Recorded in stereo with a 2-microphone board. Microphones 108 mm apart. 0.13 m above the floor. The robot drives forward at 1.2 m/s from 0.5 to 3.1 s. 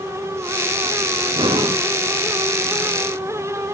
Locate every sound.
1.3 s breathing: 50° right (ahead or behind), 1.0 m; by 1.9 s 55° right (ahead or behind), 0.9 m